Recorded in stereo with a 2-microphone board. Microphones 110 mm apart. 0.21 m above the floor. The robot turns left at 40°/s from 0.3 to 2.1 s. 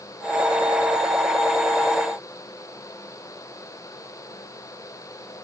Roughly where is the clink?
No clink in this recording.